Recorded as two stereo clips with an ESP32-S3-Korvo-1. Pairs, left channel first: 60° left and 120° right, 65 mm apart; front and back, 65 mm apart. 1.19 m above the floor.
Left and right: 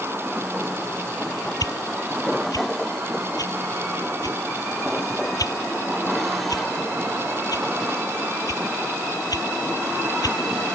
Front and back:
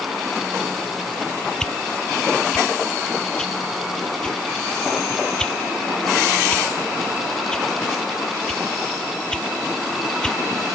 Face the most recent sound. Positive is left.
turn(degrees=80)